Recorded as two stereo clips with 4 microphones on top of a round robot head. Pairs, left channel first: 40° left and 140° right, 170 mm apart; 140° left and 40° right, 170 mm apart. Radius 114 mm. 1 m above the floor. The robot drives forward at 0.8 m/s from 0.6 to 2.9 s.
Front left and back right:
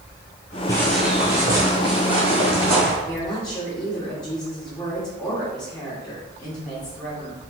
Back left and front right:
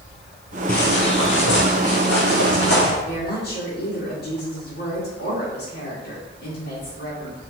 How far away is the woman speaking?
About 2.0 m.